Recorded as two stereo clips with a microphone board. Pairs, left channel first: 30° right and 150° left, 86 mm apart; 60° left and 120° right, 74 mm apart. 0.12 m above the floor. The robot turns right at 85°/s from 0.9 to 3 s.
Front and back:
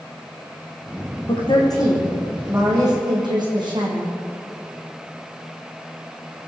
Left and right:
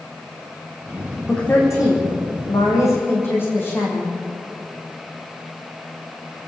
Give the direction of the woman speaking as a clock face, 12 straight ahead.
1 o'clock.